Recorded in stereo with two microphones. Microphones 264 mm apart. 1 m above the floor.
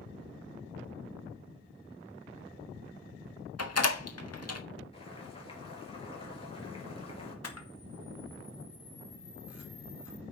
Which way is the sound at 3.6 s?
65° left (ahead or behind).